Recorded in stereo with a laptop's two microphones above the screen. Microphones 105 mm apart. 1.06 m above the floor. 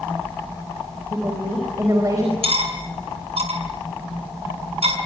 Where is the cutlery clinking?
70° right (ahead or behind), 6 m.